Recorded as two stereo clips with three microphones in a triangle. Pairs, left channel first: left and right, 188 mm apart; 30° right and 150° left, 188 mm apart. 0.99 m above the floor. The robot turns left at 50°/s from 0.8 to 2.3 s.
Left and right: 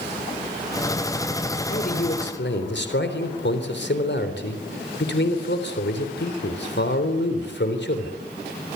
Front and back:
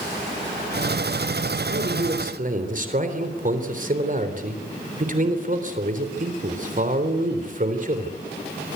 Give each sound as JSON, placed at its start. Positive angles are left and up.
{"t": 1.7, "sound": "a man speaking", "azimuth_deg": 135, "distance_m": 3.5}